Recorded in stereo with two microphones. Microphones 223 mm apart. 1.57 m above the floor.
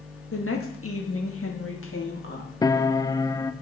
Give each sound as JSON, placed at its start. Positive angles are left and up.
{"t": 0.3, "sound": "a woman speaking", "side_deg": 70, "distance_m": 2.5}
{"t": 2.6, "sound": "a piano", "side_deg": 15, "distance_m": 0.6}